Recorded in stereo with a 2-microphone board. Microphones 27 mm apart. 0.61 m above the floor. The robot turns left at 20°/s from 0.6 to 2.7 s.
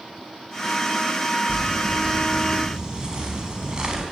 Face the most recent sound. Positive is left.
turn(degrees=-30)  # may be behind; listen again after turning